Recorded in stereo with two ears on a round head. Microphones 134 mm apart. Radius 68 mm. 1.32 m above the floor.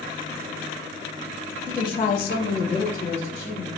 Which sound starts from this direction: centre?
A woman speaking, at 1.7 s.